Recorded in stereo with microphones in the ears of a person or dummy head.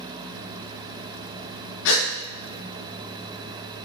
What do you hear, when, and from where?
1.9 s a gasp: 70° left (ahead or behind), 0.5 m